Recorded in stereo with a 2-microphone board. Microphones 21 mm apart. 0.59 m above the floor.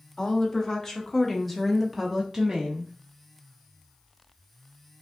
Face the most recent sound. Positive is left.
turn(degrees=-40)  # may be behind; listen again after turning